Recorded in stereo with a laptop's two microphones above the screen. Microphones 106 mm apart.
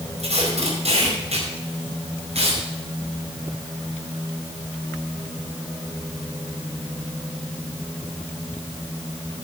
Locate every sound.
0.2 s tape being pulled: 85° right, 4.5 m